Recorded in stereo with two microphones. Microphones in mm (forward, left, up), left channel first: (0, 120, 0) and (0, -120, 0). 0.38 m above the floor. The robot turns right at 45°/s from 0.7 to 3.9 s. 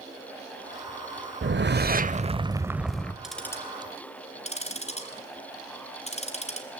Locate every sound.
1.4 s a whoosh: 70° right, 0.8 m; by 3.1 s 10° left, 0.8 m
3.2 s ticking: centre (ahead or behind), 2 m; by 6.7 s 25° left (ahead or behind), 2 m